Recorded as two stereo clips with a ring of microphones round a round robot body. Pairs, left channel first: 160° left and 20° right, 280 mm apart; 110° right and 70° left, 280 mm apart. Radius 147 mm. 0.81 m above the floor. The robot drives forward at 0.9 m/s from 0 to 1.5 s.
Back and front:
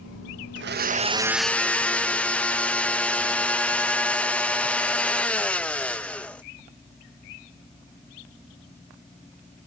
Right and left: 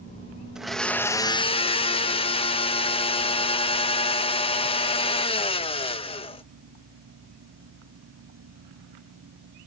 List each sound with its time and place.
0.6 s a blender: 20° right; by 6.4 s 125° right